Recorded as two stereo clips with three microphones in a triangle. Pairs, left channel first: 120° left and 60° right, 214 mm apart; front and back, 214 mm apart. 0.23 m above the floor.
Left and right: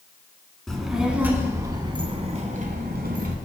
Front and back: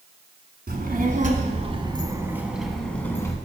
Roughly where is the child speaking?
Behind right.